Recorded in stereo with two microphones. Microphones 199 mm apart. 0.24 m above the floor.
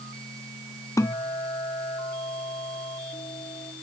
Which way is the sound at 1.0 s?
15° left (ahead or behind).